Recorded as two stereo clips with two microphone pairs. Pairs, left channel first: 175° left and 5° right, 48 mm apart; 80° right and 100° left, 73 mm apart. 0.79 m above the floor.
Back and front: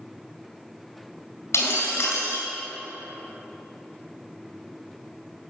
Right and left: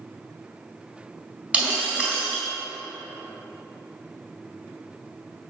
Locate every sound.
1.5 s breaking glass: 175° left, 4 m